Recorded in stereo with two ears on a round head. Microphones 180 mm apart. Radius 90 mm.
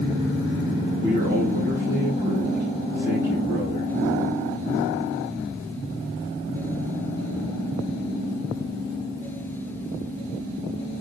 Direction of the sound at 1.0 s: 45° right (ahead or behind).